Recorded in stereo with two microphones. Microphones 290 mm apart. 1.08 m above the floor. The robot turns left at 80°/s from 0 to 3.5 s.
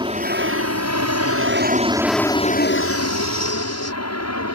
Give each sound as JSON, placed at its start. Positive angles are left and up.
{"t": 0.0, "sound": "an aircraft", "side_deg": -15}